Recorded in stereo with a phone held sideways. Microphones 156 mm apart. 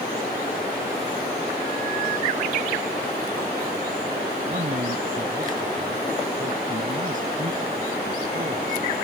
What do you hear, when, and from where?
4.5 s a man speaking: 55° right (ahead or behind)